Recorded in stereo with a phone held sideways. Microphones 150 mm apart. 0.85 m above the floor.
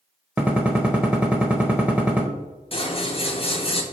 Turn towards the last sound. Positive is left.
turn(degrees=40)  # may be behind; listen again after turning